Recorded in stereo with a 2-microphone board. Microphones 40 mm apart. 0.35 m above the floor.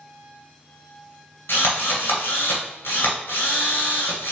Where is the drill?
80° left, 1.8 m.